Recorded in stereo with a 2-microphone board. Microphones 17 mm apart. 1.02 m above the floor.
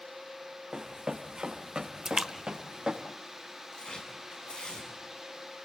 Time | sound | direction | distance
0.7 | running footsteps | 40° right (ahead or behind) | 3.5 m
2.0 | a splash | 35° right (ahead or behind) | 1.2 m
3.7 | tearing paper | 70° left (ahead or behind) | 7.5 m